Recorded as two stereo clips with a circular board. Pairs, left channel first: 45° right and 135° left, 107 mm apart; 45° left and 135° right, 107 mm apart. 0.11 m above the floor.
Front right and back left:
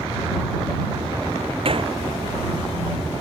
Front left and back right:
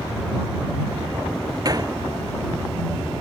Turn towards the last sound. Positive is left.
turn(degrees=170)